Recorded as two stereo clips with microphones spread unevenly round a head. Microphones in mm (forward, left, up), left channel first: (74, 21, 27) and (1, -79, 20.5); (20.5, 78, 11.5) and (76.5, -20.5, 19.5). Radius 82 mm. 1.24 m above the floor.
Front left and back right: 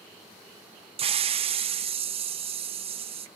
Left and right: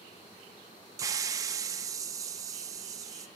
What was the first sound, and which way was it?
A hiss, 120° right.